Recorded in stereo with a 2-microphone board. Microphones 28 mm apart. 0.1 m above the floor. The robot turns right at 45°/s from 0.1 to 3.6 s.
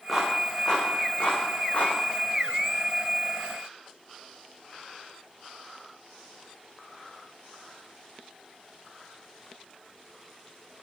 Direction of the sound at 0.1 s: Centre (ahead or behind).